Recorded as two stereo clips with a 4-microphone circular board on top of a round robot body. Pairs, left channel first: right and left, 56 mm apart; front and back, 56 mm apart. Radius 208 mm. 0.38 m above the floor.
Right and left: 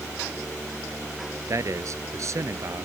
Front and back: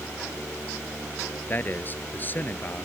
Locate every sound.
1.5 s a man speaking: 55° left